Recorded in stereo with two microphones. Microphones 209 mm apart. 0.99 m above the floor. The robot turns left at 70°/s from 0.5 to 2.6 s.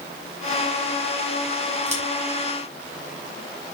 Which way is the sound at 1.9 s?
35° right (ahead or behind).